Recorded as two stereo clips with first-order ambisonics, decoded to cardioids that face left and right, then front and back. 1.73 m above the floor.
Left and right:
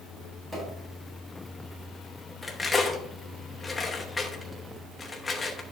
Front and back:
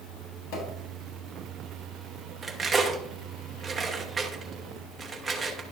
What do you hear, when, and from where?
0.5 s a pop: 15° right, 4.5 m
2.4 s cutlery clinking: 140° left, 0.8 m